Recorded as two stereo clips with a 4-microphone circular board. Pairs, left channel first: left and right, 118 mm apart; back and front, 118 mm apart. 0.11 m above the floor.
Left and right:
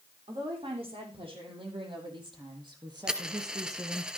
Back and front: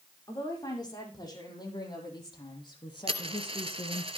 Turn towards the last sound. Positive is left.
turn(degrees=-10)